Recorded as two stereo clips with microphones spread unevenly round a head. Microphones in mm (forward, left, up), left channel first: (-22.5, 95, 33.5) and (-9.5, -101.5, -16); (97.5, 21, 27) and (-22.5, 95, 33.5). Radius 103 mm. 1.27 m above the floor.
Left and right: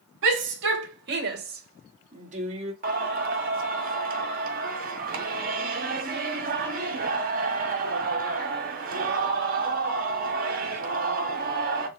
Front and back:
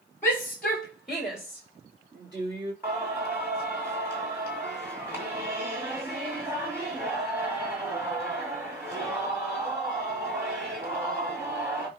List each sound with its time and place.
0.2 s a shout: 110° right, 3 m; by 2.7 s 145° right, 2.5 m
2.8 s singing: 135° right, 1.8 m